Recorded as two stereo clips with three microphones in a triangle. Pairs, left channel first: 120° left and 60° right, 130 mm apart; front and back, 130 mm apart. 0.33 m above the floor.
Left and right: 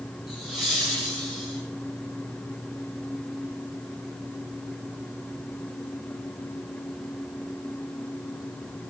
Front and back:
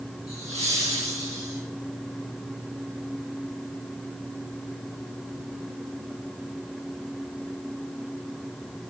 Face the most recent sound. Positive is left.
turn(degrees=-145)